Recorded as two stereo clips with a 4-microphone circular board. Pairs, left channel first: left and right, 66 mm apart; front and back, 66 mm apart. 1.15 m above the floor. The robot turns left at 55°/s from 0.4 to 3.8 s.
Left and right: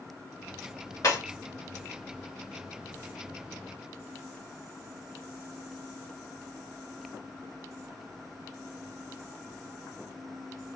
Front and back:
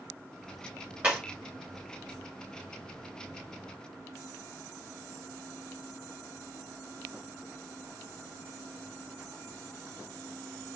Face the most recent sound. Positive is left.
turn(degrees=-40)